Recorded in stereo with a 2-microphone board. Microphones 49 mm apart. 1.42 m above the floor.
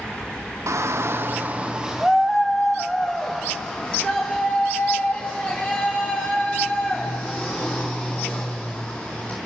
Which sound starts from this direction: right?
A shout, at 0.7 s.